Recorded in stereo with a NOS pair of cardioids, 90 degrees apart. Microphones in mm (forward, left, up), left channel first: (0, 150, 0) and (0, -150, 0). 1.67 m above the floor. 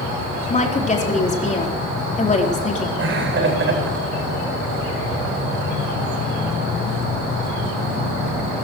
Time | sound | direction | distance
0.5 | a woman speaking | 25° left | 4 m
3.0 | laughter | 40° right | 9 m